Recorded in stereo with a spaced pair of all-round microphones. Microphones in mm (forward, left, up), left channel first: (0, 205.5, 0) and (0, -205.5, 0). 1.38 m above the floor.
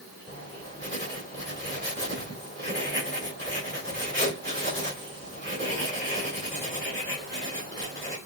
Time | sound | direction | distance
0.3 | writing | 30° right (ahead or behind) | 3 m